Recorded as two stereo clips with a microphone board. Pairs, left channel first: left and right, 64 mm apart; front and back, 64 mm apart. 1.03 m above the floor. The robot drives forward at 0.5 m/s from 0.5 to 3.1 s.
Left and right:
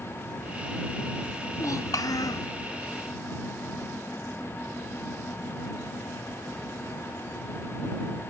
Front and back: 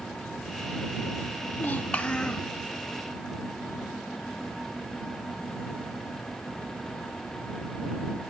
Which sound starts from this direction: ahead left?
A child speaking, at 1.5 s.